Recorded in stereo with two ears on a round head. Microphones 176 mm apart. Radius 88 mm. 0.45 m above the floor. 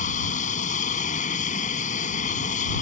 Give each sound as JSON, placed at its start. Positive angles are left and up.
{"t": 0.0, "sound": "an aircraft", "side_deg": 40}